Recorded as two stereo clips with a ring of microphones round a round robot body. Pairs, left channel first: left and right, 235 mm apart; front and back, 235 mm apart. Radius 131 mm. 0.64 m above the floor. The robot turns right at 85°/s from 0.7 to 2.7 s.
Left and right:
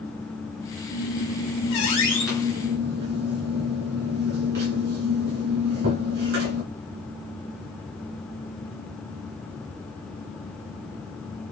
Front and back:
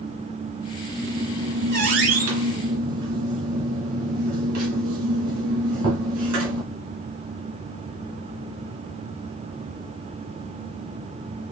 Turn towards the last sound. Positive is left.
turn(degrees=-140)